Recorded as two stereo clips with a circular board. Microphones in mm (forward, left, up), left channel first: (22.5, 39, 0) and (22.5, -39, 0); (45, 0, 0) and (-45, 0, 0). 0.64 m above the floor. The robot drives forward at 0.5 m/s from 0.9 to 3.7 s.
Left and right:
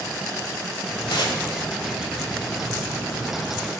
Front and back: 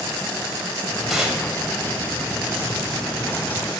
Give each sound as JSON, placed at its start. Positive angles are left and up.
{"t": 1.1, "sound": "tearing paper", "azimuth_deg": 95, "distance_m": 0.8}